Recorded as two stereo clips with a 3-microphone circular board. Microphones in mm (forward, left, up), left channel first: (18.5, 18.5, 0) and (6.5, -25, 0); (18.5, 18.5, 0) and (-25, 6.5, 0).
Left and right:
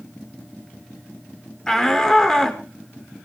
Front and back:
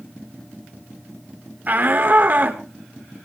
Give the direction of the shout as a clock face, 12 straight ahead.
7 o'clock.